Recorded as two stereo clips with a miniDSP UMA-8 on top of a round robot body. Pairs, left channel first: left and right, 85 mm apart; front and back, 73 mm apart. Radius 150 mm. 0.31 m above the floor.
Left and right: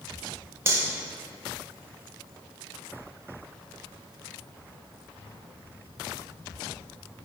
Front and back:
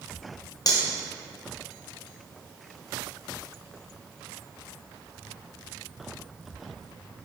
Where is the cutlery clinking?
30° right, 1.7 m.